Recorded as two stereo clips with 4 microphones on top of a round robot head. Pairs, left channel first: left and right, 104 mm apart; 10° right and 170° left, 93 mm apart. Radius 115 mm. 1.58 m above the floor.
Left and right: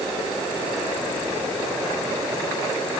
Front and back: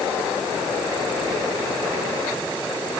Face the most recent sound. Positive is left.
No sound to turn to.